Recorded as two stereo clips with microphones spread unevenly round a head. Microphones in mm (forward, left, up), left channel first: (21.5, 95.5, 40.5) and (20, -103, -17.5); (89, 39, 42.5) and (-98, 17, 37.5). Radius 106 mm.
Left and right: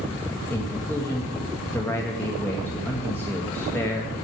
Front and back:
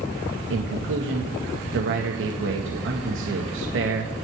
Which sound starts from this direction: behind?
A man speaking, at 0.5 s.